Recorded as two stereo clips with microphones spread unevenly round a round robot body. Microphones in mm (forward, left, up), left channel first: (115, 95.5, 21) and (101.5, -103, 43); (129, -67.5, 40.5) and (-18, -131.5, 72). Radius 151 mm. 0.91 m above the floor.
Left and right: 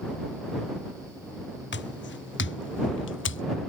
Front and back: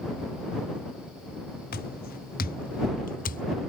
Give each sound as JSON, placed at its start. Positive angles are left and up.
{"t": 1.7, "sound": "footsteps", "azimuth_deg": 65}